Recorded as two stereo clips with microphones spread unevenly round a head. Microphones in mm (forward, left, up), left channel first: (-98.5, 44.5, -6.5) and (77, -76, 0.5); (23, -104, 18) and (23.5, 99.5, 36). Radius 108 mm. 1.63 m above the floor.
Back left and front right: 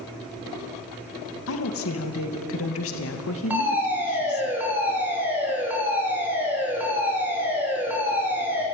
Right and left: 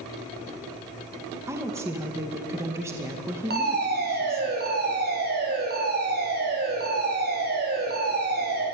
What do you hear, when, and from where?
1.5 s a woman speaking: 170° left, 2.5 m
3.5 s a fire alarm: 45° left, 5.5 m